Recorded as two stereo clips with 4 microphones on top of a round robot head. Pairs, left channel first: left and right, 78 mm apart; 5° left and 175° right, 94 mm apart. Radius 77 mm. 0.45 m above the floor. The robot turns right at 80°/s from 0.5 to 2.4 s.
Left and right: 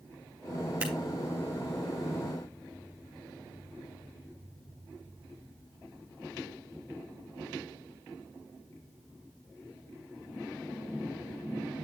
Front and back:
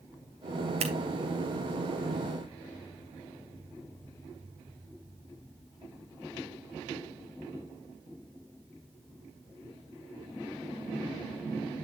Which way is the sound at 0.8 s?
165° right.